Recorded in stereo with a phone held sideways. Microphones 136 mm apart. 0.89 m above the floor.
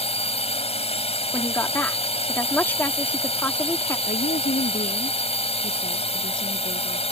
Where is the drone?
50° left (ahead or behind).